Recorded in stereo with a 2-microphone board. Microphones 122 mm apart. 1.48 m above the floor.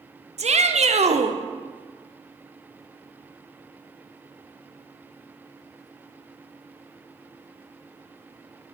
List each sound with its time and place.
0.4 s a shout: 65° right (ahead or behind), 0.7 m